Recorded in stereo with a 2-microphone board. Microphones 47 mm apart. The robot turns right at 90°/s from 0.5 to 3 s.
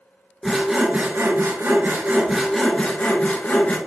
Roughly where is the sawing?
Behind.